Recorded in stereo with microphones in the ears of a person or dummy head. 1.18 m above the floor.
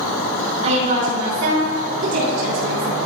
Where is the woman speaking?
35° right (ahead or behind), 2.5 m; by 3.0 s 75° right (ahead or behind), 4 m.